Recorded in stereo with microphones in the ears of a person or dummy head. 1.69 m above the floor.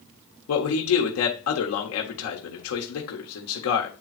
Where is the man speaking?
80° left, 1.6 m.